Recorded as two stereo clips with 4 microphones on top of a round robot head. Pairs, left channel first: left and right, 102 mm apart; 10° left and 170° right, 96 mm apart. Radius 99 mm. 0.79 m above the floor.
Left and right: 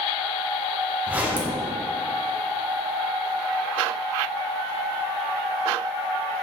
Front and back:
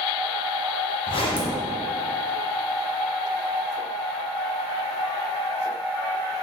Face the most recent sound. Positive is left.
turn(degrees=-15)